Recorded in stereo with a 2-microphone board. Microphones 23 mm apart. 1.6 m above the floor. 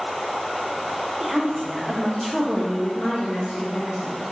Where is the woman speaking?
35° right (ahead or behind), 0.9 m; by 4.2 s 60° left (ahead or behind), 1.2 m.